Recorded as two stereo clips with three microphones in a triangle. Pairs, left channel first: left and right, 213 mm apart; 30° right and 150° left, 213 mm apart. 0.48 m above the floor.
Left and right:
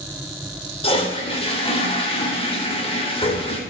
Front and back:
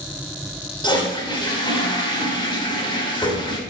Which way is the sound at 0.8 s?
35° left.